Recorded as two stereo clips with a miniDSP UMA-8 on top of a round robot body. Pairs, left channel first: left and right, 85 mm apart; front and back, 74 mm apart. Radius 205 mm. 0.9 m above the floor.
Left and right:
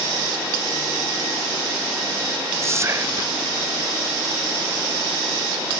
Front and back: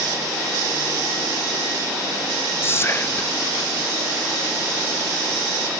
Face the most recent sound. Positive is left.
turn(degrees=-45)